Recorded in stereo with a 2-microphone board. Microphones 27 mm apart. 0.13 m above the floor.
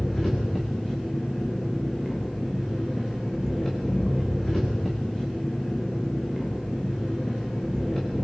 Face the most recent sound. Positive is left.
turn(degrees=15)  # may be behind; listen again after turning